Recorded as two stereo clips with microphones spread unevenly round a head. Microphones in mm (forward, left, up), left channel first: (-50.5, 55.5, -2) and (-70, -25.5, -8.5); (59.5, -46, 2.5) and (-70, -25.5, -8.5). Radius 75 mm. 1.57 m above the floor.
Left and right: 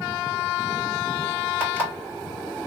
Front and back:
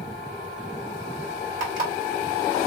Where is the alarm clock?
170° right, 2 m.